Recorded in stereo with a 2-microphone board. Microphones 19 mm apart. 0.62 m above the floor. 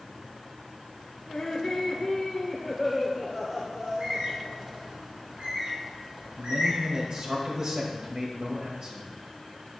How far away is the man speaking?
About 3 m.